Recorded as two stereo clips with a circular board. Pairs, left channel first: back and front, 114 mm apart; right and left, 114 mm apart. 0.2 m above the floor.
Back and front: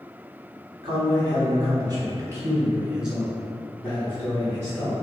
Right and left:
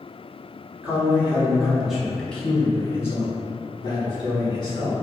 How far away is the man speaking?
About 1.5 m.